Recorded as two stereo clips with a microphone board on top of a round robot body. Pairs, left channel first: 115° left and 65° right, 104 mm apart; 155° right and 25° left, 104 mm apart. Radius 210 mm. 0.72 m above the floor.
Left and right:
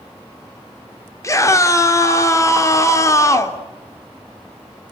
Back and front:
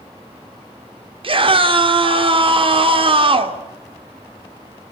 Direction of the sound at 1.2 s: 55° left.